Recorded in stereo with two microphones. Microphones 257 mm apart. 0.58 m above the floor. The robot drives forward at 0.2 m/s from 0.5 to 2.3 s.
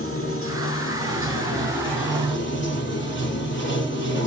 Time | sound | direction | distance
0.0 | running water | 55° left (ahead or behind) | 1.2 m